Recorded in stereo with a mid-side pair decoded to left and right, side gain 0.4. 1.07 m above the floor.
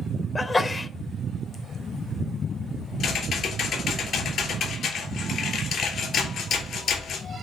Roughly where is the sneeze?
Ahead left.